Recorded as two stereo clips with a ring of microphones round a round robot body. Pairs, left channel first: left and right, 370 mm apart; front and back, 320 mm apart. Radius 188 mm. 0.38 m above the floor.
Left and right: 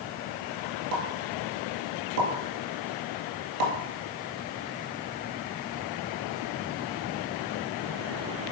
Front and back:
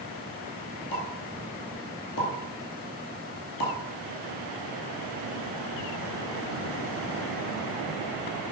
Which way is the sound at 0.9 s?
65° right.